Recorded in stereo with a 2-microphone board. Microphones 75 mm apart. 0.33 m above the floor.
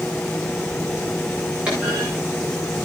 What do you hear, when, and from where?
1.7 s a clunk: 15° right (ahead or behind), 9.5 m